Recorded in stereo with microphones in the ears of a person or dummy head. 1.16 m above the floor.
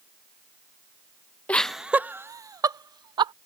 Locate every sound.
1.5 s laughter: 10° left (ahead or behind); by 3.3 s 25° right (ahead or behind)